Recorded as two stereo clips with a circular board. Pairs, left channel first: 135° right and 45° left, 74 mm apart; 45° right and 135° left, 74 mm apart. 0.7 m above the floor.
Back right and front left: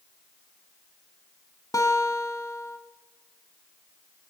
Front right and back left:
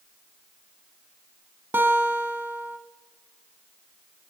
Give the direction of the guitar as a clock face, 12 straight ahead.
6 o'clock.